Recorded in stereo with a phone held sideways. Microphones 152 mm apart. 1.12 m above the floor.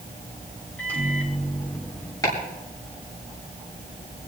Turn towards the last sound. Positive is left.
turn(degrees=20)  # may be behind; listen again after turning